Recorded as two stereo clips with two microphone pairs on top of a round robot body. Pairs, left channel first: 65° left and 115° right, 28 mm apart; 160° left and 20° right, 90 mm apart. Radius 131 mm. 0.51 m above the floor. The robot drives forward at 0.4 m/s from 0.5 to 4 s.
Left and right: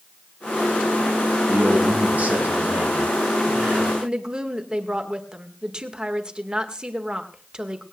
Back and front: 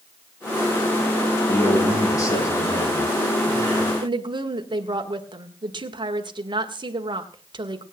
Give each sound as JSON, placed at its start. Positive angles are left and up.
{"t": 1.5, "sound": "a man speaking", "azimuth_deg": -145, "distance_m": 6.0}
{"t": 4.0, "sound": "a woman speaking", "azimuth_deg": -50, "distance_m": 1.9}